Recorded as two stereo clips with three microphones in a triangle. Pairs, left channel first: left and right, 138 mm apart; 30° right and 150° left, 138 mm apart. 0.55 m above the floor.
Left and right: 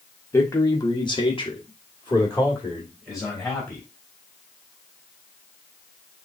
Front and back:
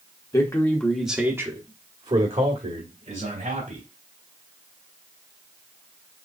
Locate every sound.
0.3 s a man speaking: 25° left, 1.3 m; by 3.8 s 155° left, 2.5 m